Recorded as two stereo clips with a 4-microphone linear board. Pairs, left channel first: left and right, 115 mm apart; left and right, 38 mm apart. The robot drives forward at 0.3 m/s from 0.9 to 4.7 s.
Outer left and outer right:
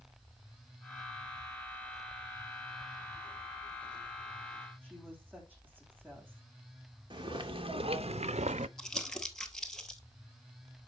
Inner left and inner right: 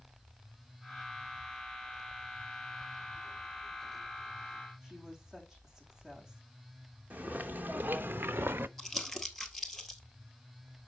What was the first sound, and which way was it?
A woman speaking, 15° right (ahead or behind).